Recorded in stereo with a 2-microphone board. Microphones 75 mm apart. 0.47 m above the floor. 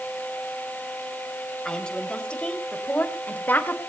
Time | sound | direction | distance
1.6 | a woman speaking | 10° left (ahead or behind) | 3 m